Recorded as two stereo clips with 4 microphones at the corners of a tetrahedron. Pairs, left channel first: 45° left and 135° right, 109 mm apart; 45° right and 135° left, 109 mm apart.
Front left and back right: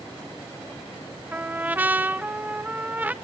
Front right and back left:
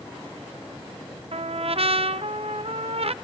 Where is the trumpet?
150° left, 0.7 m.